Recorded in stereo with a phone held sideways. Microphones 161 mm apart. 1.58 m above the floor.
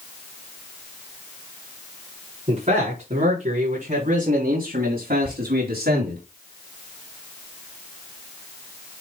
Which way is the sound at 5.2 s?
80° left.